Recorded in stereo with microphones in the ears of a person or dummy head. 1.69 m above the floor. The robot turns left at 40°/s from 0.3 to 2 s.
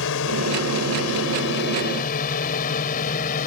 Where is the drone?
65° left (ahead or behind); by 3.5 s 40° left (ahead or behind).